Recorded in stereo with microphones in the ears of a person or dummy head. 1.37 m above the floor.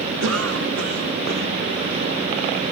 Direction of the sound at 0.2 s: 85° right.